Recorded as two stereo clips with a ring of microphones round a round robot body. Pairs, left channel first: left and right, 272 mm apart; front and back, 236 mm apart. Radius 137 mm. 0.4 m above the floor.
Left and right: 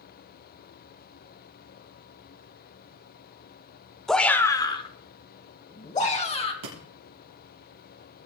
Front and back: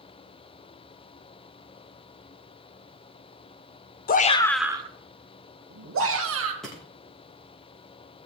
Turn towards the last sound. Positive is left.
turn(degrees=-90)